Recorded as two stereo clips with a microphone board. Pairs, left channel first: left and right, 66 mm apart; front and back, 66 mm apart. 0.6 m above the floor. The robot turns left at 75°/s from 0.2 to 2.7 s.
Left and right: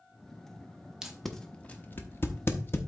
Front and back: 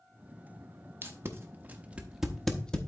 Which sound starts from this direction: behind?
Tape being pulled, at 1.0 s.